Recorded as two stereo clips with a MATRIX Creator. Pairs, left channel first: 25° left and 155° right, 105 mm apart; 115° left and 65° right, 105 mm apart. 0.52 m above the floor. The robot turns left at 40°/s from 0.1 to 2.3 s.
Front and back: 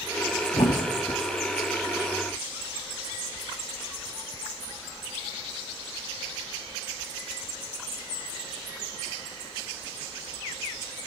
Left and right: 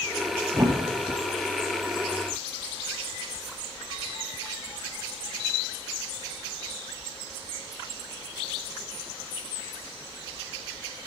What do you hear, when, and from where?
0.5 s a thud: 10° right, 1.6 m; by 1.2 s 35° right, 1.6 m